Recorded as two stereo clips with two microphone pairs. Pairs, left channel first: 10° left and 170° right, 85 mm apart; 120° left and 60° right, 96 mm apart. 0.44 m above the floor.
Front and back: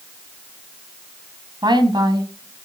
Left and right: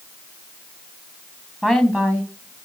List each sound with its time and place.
1.6 s a woman speaking: 140° right, 2.5 m; by 2.7 s 135° right, 3 m